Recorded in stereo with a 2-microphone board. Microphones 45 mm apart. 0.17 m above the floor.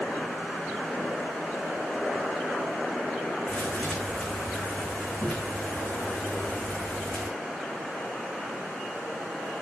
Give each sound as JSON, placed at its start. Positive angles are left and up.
{"t": 3.5, "sound": "a thud", "side_deg": 25, "distance_m": 5.5}